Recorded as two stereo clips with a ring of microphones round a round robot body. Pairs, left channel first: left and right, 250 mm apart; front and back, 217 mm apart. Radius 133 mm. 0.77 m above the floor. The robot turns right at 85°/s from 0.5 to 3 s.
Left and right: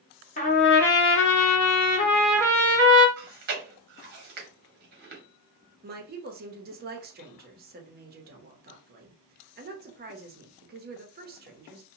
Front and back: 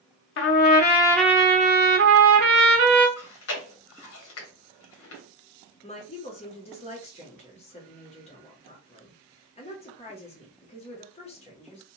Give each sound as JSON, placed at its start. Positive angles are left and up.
{"t": 0.4, "sound": "a trumpet", "azimuth_deg": 30, "distance_m": 0.7}
{"t": 3.2, "sound": "chewing", "azimuth_deg": -35, "distance_m": 0.9}
{"t": 5.8, "sound": "a woman speaking", "azimuth_deg": -50, "distance_m": 0.8}